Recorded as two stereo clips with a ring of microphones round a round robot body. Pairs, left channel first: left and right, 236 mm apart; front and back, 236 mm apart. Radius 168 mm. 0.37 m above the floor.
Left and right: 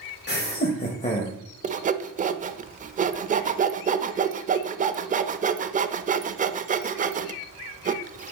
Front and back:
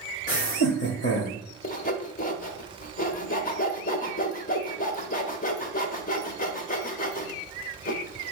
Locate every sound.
0.3 s laughter: 55° left, 1.5 m; by 1.4 s 25° left, 1.6 m
1.6 s sawing: 45° right, 0.6 m